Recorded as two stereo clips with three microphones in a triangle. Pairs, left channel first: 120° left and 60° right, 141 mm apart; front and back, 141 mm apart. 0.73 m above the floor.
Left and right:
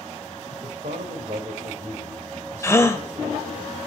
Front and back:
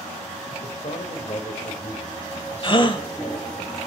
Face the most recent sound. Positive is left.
turn(degrees=50)